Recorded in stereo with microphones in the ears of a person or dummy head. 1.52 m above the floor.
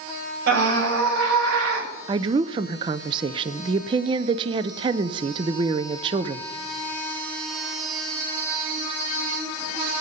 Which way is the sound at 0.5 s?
65° right (ahead or behind).